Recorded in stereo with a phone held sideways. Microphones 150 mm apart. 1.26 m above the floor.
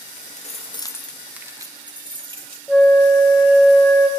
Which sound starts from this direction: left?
Keys jangling, at 0.2 s.